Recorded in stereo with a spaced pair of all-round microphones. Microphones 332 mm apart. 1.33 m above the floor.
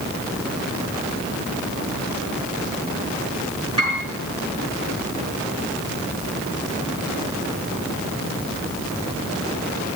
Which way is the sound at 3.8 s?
50° left (ahead or behind).